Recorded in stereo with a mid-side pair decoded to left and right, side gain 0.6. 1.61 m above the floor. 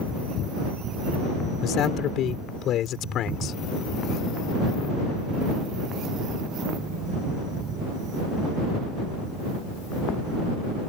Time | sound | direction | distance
1.6 | a man speaking | 55° left | ?